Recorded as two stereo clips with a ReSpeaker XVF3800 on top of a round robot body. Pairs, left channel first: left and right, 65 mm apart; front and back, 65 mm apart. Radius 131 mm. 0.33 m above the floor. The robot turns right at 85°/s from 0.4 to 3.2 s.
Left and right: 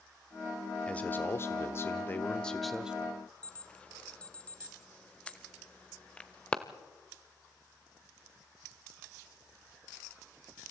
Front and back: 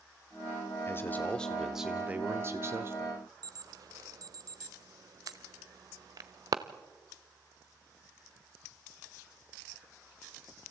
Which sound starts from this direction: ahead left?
A man speaking, at 0.9 s.